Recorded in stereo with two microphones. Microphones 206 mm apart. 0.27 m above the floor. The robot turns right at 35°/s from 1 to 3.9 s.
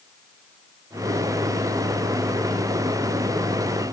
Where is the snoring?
No snoring in this recording.